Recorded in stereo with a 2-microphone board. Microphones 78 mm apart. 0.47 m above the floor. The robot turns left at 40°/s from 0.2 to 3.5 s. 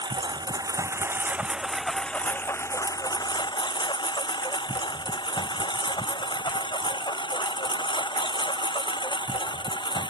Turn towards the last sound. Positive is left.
turn(degrees=85)